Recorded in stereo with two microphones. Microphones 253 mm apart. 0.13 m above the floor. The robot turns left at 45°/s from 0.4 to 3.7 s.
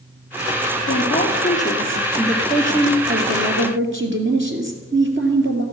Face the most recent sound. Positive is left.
turn(degrees=-60)